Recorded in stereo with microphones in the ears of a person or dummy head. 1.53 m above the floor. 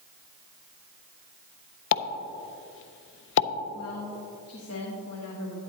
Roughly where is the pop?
Left.